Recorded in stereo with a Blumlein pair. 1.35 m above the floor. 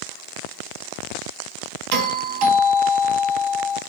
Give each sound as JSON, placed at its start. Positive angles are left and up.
{"t": 1.9, "sound": "a doorbell", "azimuth_deg": -45, "distance_m": 1.6}